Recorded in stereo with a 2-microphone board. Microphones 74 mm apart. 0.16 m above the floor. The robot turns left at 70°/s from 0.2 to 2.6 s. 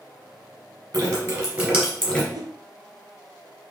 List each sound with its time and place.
0.9 s dripping: 55° right (ahead or behind), 1.9 m; by 2.2 s 15° left (ahead or behind), 1.9 m
2.3 s a whoosh: 70° right (ahead or behind), 0.5 m; by 2.5 s 55° right (ahead or behind), 0.5 m